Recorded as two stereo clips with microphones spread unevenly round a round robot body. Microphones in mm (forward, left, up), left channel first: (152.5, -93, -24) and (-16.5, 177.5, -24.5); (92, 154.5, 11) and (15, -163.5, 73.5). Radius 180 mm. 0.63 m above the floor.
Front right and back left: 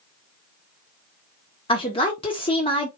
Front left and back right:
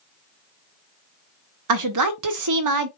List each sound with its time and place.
1.7 s a woman speaking: 130° right, 0.8 m